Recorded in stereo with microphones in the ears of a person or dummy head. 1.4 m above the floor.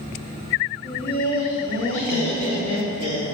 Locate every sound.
0.8 s laughter: 80° left, 1.1 m; by 3.2 s 55° left (ahead or behind), 2.5 m